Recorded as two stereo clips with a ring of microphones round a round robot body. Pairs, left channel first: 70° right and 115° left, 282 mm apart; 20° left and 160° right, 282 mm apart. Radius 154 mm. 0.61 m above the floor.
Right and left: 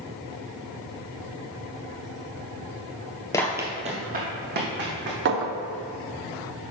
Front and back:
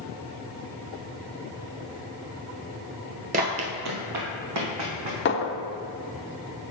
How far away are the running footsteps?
About 0.6 m.